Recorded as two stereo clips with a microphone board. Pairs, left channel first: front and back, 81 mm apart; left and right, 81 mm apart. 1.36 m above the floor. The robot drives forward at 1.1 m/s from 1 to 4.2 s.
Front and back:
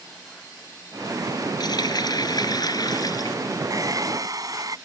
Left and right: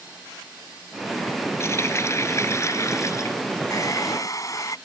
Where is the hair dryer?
135° left; by 4.8 s 140° left.